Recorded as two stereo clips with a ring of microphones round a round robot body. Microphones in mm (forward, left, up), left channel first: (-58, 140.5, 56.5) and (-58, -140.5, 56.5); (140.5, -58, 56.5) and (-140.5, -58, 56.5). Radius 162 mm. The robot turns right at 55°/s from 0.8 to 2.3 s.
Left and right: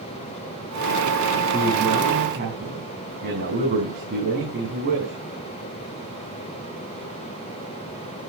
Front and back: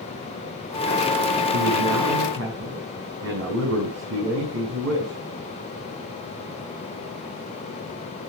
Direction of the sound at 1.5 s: 175° left.